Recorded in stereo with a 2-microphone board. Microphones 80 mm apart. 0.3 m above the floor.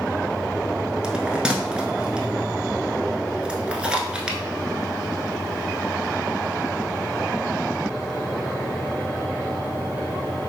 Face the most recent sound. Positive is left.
turn(degrees=-10)  # may be behind; listen again after turning